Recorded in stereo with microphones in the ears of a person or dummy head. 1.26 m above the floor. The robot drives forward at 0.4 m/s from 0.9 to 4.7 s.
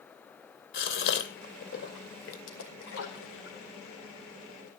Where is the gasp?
60° left (ahead or behind), 2.5 m; by 2.4 s 70° left (ahead or behind), 2 m.